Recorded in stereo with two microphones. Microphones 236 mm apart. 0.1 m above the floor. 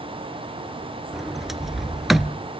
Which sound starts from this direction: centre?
A sliding door, at 1.1 s.